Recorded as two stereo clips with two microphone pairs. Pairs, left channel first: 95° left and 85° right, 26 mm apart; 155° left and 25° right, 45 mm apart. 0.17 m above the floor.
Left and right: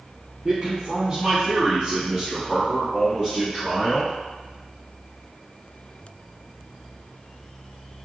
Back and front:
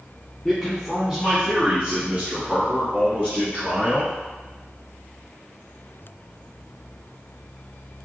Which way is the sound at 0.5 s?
125° right.